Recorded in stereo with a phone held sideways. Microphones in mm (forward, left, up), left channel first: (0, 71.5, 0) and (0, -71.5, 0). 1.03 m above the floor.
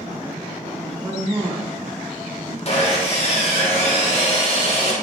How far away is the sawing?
About 1.1 m.